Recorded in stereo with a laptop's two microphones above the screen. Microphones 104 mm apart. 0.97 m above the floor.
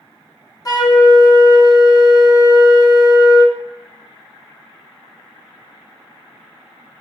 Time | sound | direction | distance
0.7 | a flute | 35° left (ahead or behind) | 0.8 m